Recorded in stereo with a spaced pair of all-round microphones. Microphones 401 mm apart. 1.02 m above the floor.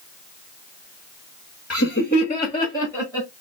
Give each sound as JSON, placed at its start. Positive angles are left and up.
{"t": 1.7, "sound": "laughter", "side_deg": 40, "distance_m": 0.8}